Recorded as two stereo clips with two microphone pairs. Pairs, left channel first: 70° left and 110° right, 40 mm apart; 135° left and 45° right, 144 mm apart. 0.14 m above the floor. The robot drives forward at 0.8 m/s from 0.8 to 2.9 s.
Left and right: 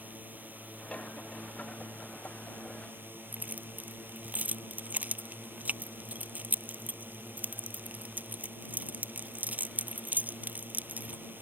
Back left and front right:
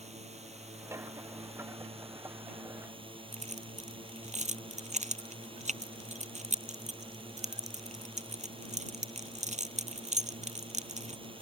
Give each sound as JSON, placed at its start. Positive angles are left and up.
{"t": 0.0, "sound": "a drone", "azimuth_deg": -75}
{"t": 3.3, "sound": "keys jangling", "azimuth_deg": -70}